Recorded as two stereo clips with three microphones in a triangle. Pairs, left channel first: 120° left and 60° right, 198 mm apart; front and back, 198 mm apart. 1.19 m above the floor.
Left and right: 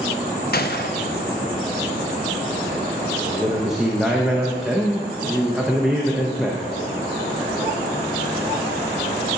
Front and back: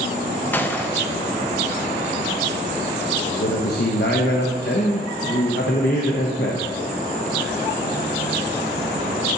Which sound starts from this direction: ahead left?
A man speaking, at 3.3 s.